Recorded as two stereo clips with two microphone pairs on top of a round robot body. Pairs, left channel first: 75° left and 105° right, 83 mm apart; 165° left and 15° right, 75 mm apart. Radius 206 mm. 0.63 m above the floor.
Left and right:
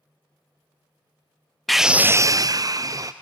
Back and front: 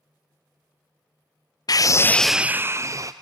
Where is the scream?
155° left, 0.6 m; by 3.1 s 55° right, 0.9 m.